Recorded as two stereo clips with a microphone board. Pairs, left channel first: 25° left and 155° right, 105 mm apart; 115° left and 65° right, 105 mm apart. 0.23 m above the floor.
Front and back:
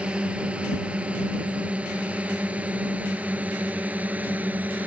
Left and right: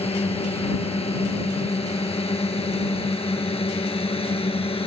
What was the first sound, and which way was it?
A drone, 125° left.